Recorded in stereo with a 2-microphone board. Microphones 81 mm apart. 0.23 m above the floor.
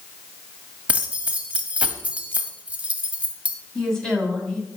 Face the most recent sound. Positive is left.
turn(degrees=5)  # may be behind; listen again after turning